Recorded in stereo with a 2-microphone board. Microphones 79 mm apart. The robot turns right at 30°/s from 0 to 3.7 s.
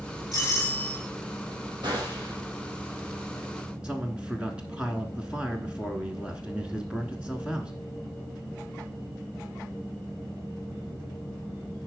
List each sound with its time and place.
0.3 s a doorbell: 55° left (ahead or behind), 5.5 m; by 1.0 s 35° left (ahead or behind), 5.5 m
1.8 s a gunshot: 65° right (ahead or behind), 4 m; by 2.4 s 70° right (ahead or behind), 4 m
3.8 s a man speaking: 15° right (ahead or behind), 1.1 m